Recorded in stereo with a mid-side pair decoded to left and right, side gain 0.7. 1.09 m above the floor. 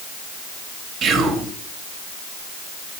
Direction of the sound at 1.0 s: 40° right.